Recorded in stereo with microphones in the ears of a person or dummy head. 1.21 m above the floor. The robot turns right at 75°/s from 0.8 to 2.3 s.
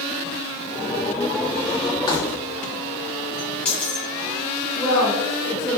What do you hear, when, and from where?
2.1 s keys jangling: 25° left (ahead or behind), 0.8 m; by 4.1 s 5° left (ahead or behind), 0.8 m
4.8 s a woman speaking: 10° right (ahead or behind), 1.7 m